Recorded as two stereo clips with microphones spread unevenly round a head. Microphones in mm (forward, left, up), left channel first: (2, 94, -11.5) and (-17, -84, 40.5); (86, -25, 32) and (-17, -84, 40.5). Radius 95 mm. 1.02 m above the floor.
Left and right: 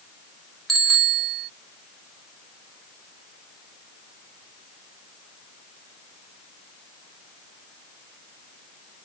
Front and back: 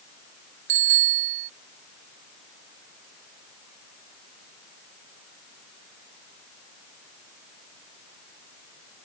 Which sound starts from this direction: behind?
A bicycle bell, at 0.7 s.